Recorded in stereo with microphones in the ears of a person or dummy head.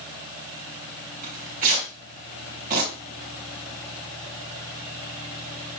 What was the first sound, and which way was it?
Tearing paper, 45° right (ahead or behind).